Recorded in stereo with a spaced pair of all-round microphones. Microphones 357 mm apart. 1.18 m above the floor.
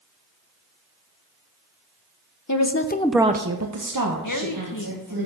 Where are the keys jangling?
I don't hear keys jangling.